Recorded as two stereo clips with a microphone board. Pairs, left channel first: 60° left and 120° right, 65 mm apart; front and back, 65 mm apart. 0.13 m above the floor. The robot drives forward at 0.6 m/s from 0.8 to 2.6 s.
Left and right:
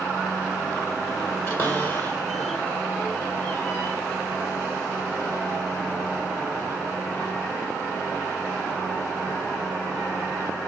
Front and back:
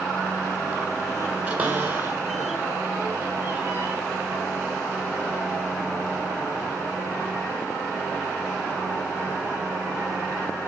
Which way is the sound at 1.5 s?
110° left.